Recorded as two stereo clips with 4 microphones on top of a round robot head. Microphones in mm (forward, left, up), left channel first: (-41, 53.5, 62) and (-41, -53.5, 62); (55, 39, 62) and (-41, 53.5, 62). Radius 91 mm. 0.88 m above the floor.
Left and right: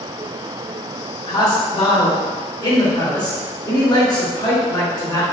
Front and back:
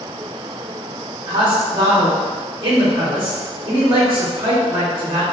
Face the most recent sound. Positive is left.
turn(degrees=130)